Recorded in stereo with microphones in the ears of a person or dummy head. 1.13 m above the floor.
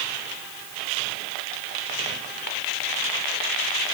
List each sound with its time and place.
Only background noise.